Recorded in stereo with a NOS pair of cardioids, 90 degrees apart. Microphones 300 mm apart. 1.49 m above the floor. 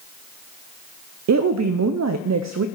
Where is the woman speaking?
65° right, 0.6 m.